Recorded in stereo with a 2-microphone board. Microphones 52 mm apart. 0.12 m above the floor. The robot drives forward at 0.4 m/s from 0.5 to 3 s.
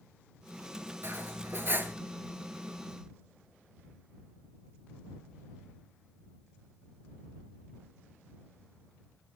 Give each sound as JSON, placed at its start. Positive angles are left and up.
{"t": 1.0, "sound": "cutlery clinking", "side_deg": -45, "distance_m": 1.3}